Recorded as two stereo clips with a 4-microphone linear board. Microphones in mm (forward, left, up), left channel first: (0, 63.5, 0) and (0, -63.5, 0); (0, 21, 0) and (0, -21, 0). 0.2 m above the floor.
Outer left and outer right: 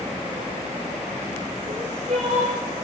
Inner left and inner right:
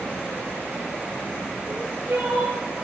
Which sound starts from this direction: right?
Crying, at 1.6 s.